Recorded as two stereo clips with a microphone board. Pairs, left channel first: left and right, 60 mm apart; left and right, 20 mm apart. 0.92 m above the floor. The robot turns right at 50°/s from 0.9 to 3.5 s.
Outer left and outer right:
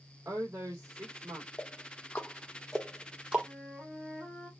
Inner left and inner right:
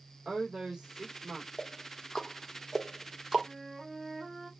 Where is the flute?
20° left (ahead or behind), 3 m; by 4.5 s 25° left (ahead or behind), 3 m.